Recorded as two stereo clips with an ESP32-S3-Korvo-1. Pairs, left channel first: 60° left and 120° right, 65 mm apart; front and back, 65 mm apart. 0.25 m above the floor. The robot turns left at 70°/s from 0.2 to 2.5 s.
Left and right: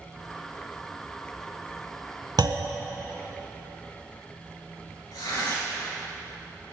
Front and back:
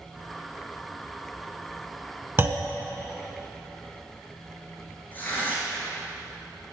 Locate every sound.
2.4 s a clunk: 125° right, 0.6 m; by 2.7 s 130° right, 0.6 m
5.1 s tearing paper: 60° left, 2.5 m